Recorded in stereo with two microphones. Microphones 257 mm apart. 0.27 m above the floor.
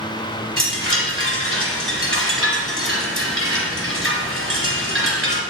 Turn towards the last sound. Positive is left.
turn(degrees=-50)  # may be behind; listen again after turning